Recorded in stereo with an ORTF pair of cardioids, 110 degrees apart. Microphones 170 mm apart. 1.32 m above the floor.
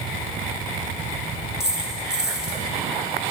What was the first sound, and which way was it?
A dropped coin, 5° right.